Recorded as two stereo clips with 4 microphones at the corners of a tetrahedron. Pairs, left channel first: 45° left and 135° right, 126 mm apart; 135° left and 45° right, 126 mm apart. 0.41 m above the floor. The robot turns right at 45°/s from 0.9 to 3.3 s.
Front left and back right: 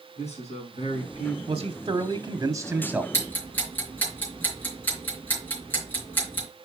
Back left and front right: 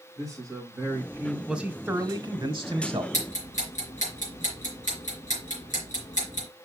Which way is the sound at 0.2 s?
15° left.